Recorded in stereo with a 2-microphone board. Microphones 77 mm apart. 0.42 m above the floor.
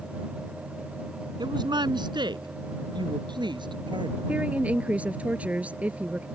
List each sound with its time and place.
1.4 s a woman speaking: 70° right (ahead or behind); by 4.2 s 80° right
4.3 s a woman speaking: 15° right (ahead or behind)